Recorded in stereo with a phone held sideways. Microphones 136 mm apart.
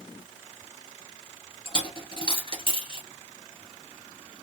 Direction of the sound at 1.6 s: 40° left (ahead or behind).